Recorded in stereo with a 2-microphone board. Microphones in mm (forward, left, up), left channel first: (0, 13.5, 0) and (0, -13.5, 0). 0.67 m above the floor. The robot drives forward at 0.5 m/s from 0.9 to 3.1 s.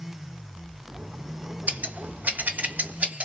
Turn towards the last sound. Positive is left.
turn(degrees=-65)  # may be behind; listen again after turning